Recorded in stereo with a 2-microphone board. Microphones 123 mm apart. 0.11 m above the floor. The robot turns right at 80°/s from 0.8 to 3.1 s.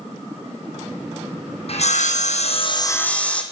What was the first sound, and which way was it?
Sawing, 55° left.